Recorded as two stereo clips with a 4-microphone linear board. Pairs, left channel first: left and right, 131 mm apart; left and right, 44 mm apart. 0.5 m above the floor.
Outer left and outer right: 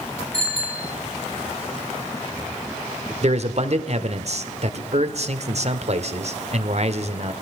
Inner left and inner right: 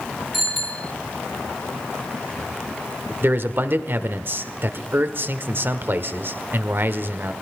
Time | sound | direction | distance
0.3 | a bicycle bell | 5° left (ahead or behind) | 4.5 m
3.2 | a man speaking | 55° right (ahead or behind) | 1.4 m